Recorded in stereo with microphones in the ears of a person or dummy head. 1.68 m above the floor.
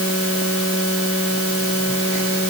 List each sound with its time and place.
Only background noise.